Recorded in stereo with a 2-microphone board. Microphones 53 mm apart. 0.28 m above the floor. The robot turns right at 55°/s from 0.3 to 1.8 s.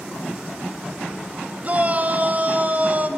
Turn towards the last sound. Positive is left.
turn(degrees=-35)  # may be behind; listen again after turning